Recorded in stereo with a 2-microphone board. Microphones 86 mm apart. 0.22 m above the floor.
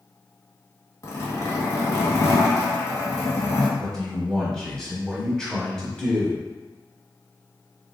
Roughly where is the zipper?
Left.